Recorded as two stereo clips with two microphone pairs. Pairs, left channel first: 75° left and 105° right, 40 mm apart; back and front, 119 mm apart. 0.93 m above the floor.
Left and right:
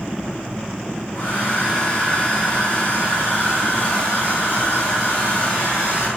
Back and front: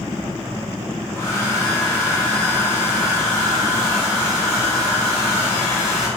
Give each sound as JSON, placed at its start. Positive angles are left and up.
{"t": 1.1, "sound": "a hair dryer", "azimuth_deg": 115, "distance_m": 2.5}